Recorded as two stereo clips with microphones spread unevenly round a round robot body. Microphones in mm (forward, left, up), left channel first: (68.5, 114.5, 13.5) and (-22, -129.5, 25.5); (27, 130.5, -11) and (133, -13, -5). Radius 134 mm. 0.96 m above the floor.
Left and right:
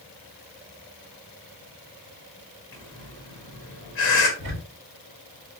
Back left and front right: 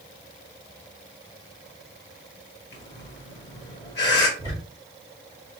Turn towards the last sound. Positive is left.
turn(degrees=-160)